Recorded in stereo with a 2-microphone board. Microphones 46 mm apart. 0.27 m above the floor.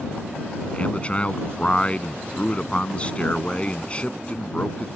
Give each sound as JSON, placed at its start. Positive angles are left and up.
{"t": 0.7, "sound": "a man speaking", "side_deg": 25}